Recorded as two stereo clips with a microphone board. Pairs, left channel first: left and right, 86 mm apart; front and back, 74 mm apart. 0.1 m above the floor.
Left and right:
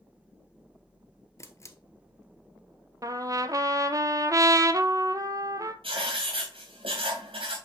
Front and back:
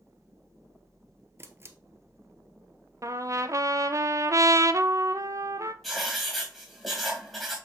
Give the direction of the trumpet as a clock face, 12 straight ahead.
5 o'clock.